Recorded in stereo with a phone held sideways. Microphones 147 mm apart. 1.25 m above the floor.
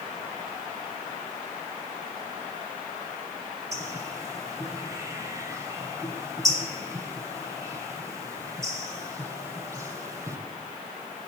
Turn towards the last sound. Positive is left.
turn(degrees=-20)  # may be behind; listen again after turning